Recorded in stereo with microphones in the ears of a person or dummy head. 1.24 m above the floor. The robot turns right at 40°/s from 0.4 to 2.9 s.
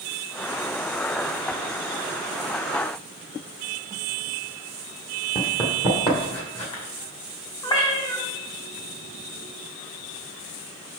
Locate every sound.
5.3 s running footsteps: 20° left (ahead or behind), 1.4 m; by 6.8 s 40° left (ahead or behind), 2.5 m
7.6 s a cat meowing: 20° left (ahead or behind), 1.2 m